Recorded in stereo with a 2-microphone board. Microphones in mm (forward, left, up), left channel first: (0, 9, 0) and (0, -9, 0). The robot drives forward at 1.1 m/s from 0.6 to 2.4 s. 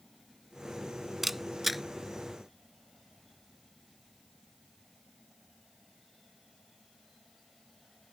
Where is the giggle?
No giggle in this recording.